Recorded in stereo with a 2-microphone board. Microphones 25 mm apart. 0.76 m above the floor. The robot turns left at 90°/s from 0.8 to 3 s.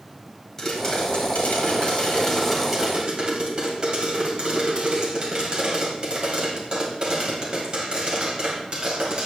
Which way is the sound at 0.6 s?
165° left.